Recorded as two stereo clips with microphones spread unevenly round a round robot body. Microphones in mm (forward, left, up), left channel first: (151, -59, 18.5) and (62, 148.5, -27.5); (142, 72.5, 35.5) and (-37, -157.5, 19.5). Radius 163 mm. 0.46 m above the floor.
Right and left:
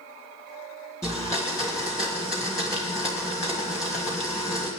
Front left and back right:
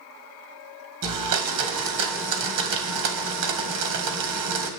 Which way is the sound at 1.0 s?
150° right.